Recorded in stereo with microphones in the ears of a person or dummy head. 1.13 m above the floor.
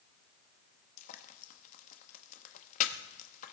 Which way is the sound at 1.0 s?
40° left (ahead or behind).